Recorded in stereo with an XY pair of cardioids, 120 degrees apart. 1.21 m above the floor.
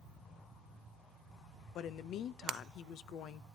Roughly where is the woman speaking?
Ahead left.